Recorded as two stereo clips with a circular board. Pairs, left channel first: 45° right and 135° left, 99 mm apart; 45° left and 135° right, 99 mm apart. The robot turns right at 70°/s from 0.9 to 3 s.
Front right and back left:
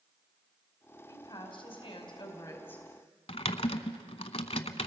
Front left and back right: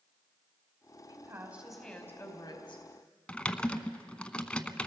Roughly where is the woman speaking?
Right.